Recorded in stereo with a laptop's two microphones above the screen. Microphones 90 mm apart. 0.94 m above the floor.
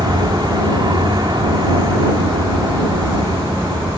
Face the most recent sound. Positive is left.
turn(degrees=-55)  # may be behind; listen again after turning